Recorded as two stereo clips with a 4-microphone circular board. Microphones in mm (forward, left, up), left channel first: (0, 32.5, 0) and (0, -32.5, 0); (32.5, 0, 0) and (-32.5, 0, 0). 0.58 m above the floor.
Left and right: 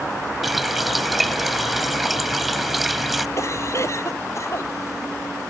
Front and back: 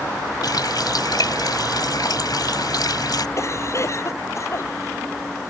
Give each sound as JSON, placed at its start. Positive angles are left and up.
{"t": 0.4, "sound": "a running tap", "azimuth_deg": 0}
{"t": 3.4, "sound": "a cough", "azimuth_deg": 45}